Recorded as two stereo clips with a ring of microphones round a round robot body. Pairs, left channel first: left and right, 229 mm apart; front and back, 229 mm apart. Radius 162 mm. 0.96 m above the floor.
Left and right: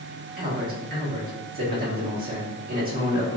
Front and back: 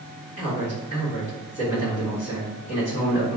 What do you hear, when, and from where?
0.4 s a man speaking: 40° right, 1.8 m